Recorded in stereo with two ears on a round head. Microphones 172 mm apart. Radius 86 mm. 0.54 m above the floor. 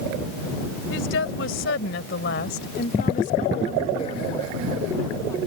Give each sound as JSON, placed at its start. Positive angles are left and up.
{"t": 0.9, "sound": "a woman speaking", "side_deg": 70}